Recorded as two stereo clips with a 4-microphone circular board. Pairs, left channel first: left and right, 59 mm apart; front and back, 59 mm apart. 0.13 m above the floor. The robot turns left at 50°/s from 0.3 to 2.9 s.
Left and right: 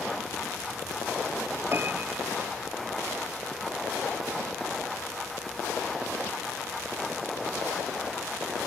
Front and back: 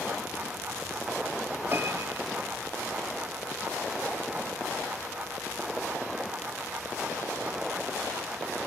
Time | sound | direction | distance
1.7 | a piano | 135° right | ?